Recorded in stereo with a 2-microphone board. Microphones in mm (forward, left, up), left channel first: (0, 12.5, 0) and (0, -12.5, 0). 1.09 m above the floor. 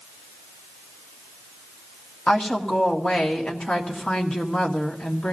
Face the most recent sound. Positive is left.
turn(degrees=65)  # may be behind; listen again after turning